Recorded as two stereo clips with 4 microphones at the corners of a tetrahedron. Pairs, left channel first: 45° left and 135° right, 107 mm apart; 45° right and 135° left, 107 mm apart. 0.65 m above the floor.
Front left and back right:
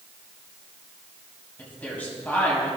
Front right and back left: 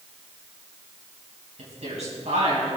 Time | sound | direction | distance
1.6 | a woman speaking | 120° left | 4 m